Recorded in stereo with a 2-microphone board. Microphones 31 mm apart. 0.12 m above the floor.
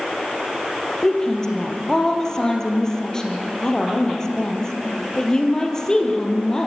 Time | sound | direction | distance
1.0 | a woman speaking | 20° left (ahead or behind) | 3.5 m